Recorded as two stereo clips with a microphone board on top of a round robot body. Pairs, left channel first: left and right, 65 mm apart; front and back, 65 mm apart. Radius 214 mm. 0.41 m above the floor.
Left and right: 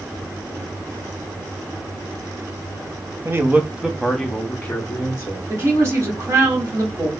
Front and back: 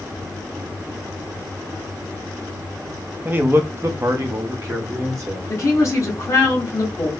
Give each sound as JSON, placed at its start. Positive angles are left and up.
{"t": 3.2, "sound": "a man speaking", "azimuth_deg": -125, "distance_m": 0.9}
{"t": 5.5, "sound": "a woman speaking", "azimuth_deg": -45, "distance_m": 1.9}